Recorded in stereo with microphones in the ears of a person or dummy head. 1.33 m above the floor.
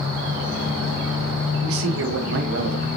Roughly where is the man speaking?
Right.